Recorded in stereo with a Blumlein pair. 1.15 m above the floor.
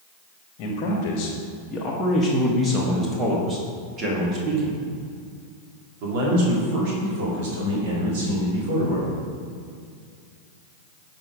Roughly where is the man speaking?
Ahead left.